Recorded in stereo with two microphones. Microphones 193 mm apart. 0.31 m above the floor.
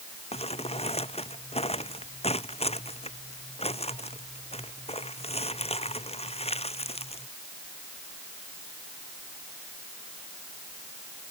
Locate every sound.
0.3 s crumpling: 30° left (ahead or behind)